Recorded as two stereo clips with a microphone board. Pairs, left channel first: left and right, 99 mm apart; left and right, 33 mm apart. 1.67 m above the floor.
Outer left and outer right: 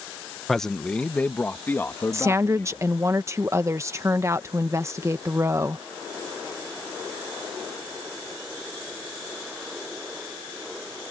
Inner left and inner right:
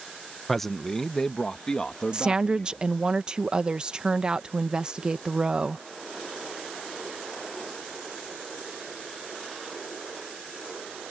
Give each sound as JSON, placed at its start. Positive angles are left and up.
{"t": 0.5, "sound": "a man speaking", "side_deg": 0}
{"t": 2.1, "sound": "a woman speaking", "side_deg": -30}